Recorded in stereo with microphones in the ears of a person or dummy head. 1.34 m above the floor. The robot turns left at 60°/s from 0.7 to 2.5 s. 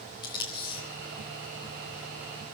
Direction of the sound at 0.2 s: 25° left (ahead or behind).